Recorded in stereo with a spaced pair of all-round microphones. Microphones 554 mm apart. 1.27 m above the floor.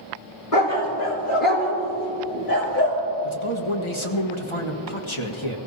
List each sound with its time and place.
0.5 s a dog barking: 70° left (ahead or behind), 3.5 m; by 3.0 s 40° left (ahead or behind), 5 m
3.2 s a man speaking: 55° left (ahead or behind), 1.6 m